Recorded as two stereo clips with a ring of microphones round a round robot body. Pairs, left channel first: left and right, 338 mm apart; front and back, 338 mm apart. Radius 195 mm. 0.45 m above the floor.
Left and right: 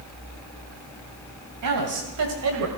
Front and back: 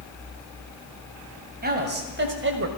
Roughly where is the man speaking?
Behind right.